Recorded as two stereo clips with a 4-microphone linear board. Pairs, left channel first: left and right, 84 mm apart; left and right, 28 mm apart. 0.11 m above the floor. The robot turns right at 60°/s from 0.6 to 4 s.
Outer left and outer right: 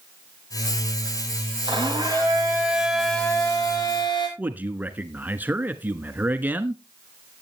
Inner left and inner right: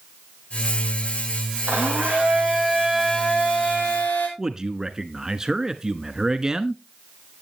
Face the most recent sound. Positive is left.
turn(degrees=-20)  # may be behind; listen again after turning